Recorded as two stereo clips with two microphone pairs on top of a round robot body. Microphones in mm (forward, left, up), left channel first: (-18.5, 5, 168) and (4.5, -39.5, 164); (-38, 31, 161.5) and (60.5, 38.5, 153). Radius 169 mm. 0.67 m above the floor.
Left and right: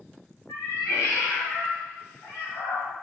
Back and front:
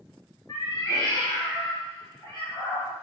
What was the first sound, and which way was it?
A cat meowing, 125° left.